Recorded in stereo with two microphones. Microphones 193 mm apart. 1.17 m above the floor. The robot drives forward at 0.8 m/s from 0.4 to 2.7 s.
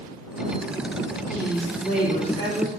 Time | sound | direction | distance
1.3 | a woman speaking | 55° left (ahead or behind) | 2.5 m